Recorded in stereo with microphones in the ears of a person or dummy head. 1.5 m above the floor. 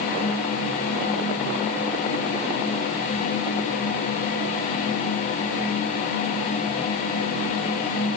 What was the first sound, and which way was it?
Only background noise.